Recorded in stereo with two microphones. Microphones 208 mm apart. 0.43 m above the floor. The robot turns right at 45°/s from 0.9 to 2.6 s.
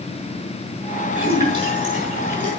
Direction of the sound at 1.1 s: 5° right (ahead or behind).